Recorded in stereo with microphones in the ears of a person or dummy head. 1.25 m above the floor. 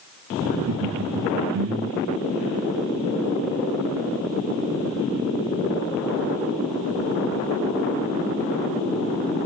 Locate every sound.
0.5 s laughter: 75° right (ahead or behind), 0.7 m